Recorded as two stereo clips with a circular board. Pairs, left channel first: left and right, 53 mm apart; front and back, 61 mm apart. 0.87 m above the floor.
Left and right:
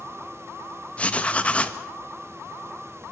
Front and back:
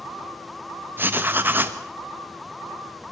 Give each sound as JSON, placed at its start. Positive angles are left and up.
{"t": 1.0, "sound": "writing", "azimuth_deg": 145, "distance_m": 1.2}